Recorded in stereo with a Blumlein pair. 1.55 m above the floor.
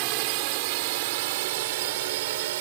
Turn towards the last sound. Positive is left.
turn(degrees=-55)